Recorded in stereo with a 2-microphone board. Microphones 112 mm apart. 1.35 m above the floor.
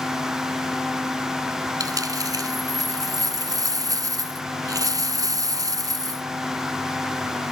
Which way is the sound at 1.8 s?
30° right (ahead or behind).